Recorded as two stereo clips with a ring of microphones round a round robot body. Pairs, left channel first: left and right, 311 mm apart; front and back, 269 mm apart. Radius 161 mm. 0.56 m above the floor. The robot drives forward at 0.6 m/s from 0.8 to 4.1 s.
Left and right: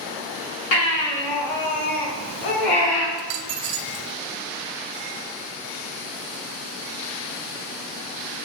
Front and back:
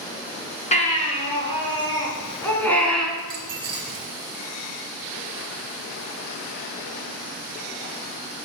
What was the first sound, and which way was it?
A baby crying, 65° left.